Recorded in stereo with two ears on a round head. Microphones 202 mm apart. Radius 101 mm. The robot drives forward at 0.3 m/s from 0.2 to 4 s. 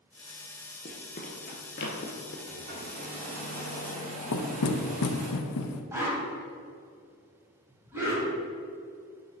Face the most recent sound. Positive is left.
turn(degrees=-10)  # may be behind; listen again after turning